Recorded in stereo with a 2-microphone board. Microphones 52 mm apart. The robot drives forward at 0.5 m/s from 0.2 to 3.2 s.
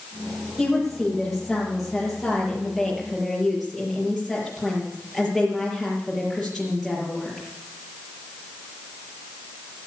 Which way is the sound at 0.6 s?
Centre (ahead or behind).